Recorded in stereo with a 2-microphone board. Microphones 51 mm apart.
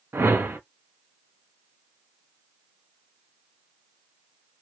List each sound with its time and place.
0.1 s a whoosh: 55° right (ahead or behind), 1.1 m